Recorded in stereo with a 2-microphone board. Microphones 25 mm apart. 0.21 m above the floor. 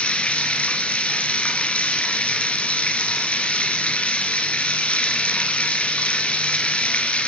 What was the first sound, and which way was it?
Running water, 50° left (ahead or behind).